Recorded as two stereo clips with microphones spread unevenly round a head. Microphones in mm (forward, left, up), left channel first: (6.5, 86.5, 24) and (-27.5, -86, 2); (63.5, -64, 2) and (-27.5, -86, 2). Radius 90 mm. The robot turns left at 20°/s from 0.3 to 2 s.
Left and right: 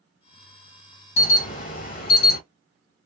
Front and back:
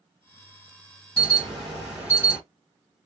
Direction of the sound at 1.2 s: 135° left.